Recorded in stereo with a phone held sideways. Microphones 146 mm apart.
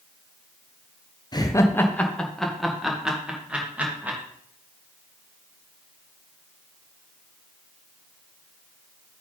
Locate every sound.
1.3 s laughter: 30° left (ahead or behind), 0.9 m; by 4.2 s 10° right (ahead or behind), 3 m